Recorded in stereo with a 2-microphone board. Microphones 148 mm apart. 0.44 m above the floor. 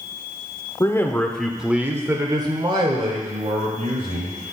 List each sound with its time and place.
0.8 s a man speaking: 25° left (ahead or behind), 0.9 m; by 4.4 s 55° right (ahead or behind), 2.0 m